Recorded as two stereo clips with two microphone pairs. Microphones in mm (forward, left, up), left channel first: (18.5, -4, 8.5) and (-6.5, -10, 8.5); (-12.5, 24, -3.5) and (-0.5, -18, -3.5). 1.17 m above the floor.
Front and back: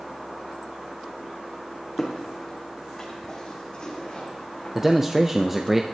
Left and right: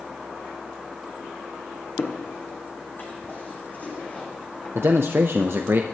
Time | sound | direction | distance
2.0 | footsteps | 90° left | 3 m
4.8 | a man speaking | 95° right | 0.6 m